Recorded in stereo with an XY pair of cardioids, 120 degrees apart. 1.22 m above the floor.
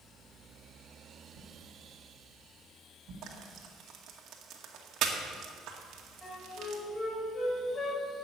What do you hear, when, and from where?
1.3 s a whoosh: 55° right, 4.5 m
3.2 s frying: 65° right, 2.0 m
6.2 s a flute: 15° left, 6 m